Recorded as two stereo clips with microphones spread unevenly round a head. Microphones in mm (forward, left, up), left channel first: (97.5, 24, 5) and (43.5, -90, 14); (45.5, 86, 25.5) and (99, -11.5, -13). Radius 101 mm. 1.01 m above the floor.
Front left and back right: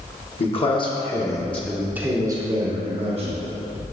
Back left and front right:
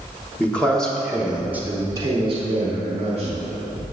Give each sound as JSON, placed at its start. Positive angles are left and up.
{"t": 0.4, "sound": "a man speaking", "azimuth_deg": 35, "distance_m": 1.5}